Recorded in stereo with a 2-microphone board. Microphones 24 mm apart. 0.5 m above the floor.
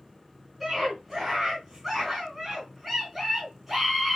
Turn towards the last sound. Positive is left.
turn(degrees=-5)  # may be behind; listen again after turning